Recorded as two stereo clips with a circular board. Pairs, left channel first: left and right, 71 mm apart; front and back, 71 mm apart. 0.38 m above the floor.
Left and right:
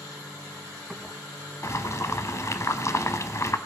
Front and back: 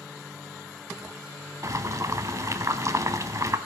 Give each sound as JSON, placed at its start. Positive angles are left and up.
{"t": 1.6, "sound": "boiling", "azimuth_deg": 140, "distance_m": 0.8}